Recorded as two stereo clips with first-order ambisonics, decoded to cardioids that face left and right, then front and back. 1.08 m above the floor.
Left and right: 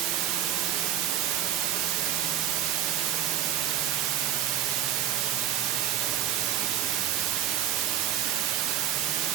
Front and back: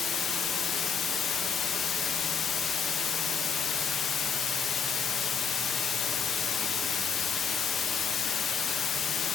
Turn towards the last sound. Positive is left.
turn(degrees=-65)